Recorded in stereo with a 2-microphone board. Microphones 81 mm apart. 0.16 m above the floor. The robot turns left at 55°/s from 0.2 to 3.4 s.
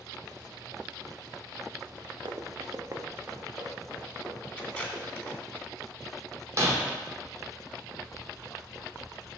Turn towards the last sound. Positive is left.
turn(degrees=-40)  # may be behind; listen again after turning